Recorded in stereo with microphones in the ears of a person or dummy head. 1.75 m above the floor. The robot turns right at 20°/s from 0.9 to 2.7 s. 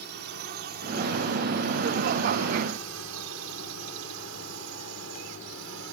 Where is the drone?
50° right (ahead or behind); by 6.0 s 65° right (ahead or behind).